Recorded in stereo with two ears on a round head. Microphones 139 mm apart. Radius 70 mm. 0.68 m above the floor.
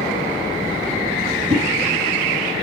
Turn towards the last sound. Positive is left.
turn(degrees=-45)  # may be behind; listen again after turning